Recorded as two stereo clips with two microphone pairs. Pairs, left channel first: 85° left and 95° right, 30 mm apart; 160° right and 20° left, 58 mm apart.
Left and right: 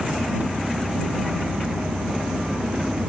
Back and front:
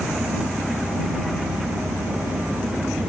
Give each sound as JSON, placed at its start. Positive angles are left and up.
{"t": 0.0, "sound": "an engine running", "azimuth_deg": -55}